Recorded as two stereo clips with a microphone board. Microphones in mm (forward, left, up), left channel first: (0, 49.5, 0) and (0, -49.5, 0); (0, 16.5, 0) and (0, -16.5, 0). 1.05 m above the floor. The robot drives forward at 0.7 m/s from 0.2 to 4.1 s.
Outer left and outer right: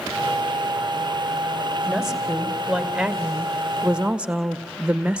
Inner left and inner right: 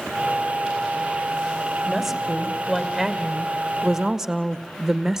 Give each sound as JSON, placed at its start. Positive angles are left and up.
{"t": 1.9, "sound": "a woman speaking", "side_deg": -5, "distance_m": 3.0}